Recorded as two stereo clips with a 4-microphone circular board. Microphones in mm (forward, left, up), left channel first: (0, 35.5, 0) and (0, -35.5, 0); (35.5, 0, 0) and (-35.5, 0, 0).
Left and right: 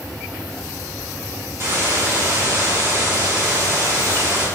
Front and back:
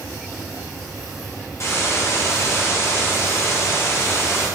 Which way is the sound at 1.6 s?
45° right.